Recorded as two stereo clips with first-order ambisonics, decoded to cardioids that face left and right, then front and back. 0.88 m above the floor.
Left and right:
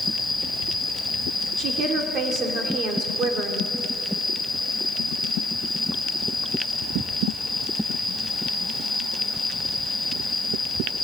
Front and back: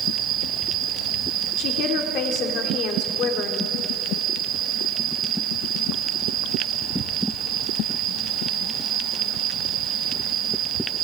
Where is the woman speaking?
40° right, 3 m.